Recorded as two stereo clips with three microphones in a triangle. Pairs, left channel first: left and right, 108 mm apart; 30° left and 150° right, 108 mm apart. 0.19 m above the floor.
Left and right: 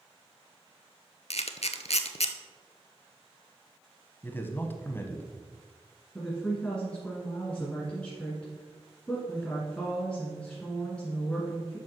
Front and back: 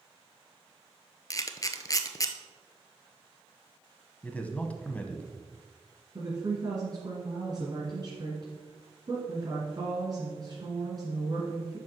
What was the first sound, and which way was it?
A camera shutter, 85° left.